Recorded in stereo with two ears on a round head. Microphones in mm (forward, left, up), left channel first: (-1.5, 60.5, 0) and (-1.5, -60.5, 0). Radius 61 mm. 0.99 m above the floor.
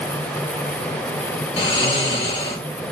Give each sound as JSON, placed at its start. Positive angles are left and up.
{"t": 1.6, "sound": "snoring", "side_deg": 35, "distance_m": 1.8}